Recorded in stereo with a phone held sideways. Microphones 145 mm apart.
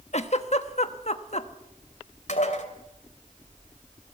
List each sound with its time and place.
0.1 s a giggle: 50° left (ahead or behind), 1.1 m
2.3 s dishes clattering: 55° left (ahead or behind), 2.5 m